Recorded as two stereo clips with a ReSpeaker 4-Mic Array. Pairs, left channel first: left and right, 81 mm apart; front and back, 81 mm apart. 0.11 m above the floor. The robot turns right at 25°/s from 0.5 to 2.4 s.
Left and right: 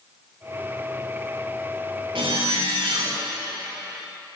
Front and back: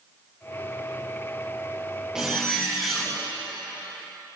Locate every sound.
2.1 s a zipper: 100° right, 3.5 m; by 3.2 s 90° right, 3.5 m